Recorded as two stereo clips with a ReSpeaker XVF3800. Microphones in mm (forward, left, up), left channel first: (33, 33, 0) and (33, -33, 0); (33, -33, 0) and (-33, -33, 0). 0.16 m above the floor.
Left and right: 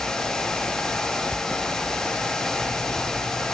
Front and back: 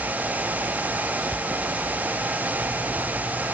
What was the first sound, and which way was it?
Only background noise.